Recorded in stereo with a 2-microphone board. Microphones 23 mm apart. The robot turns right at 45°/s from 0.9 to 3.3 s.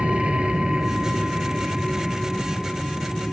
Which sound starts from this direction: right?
An aircraft, at 0.0 s.